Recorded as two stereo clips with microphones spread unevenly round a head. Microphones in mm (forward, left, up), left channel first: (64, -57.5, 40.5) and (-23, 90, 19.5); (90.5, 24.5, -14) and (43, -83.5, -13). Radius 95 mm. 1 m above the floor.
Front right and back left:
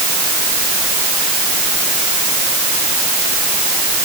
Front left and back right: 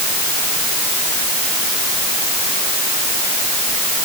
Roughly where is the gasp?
I don't hear a gasp.